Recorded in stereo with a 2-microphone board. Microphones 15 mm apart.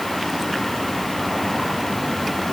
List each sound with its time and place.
Only background noise.